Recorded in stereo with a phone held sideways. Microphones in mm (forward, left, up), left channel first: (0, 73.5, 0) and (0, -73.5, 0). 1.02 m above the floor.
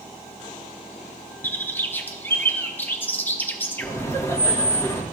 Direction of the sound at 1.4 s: 15° left (ahead or behind).